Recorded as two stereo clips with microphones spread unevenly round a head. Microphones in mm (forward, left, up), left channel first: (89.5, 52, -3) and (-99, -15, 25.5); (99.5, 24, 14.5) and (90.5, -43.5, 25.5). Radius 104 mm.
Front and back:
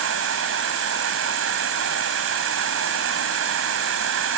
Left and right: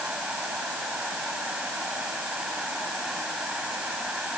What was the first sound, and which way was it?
An insect, straight behind.